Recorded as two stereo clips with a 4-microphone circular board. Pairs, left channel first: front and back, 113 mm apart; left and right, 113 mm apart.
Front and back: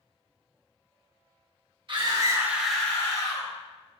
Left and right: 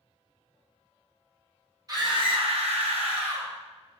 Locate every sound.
1.9 s a scream: 145° right, 1.0 m; by 3.5 s 50° right, 1.2 m